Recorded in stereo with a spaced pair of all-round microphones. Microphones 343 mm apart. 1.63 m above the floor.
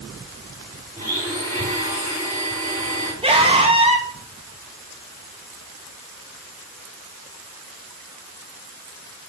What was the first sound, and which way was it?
A blender, 25° right (ahead or behind).